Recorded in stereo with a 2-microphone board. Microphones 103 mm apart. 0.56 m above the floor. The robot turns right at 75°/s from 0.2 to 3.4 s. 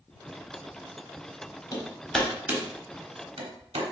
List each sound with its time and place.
1.7 s hammering: 40° left (ahead or behind), 1.1 m; by 3.9 s 90° right, 1.1 m